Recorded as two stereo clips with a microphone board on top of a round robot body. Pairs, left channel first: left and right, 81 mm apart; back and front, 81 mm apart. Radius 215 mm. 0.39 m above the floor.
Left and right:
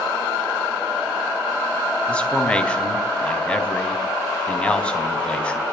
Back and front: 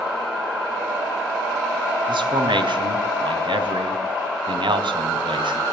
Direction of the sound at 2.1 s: 15° left.